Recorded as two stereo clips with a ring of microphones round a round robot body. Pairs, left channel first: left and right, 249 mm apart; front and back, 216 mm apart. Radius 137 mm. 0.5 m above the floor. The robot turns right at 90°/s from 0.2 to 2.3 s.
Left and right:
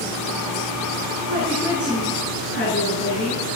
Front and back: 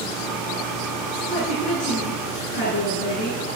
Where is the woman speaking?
55° right, 8.5 m; by 3.4 s 40° left, 8.5 m.